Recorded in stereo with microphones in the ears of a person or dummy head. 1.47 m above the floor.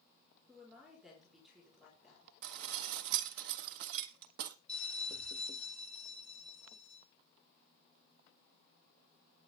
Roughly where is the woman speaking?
Centre.